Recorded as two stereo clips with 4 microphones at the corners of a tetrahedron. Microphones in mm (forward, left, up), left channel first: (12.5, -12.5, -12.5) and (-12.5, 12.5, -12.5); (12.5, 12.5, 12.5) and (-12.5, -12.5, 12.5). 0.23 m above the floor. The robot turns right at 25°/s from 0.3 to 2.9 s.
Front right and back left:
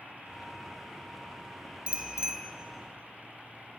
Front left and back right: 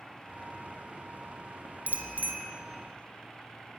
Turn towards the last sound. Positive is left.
turn(degrees=-145)